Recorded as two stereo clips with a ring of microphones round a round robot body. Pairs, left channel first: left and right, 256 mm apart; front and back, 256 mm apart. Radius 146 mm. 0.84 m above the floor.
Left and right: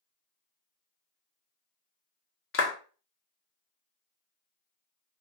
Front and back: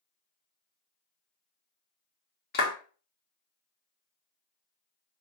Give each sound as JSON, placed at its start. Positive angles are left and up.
{"t": 2.5, "sound": "a clap", "azimuth_deg": 55, "distance_m": 1.2}